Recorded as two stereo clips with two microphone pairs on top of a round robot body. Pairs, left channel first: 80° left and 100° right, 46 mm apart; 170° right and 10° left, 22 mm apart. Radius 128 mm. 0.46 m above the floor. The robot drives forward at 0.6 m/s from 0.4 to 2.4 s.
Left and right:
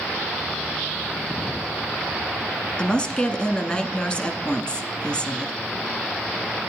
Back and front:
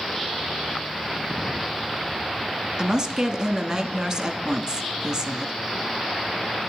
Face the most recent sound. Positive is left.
turn(degrees=35)